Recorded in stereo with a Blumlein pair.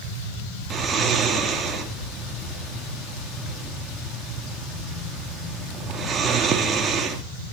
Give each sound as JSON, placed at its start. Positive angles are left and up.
{"t": 0.7, "sound": "snoring", "azimuth_deg": -20, "distance_m": 2.5}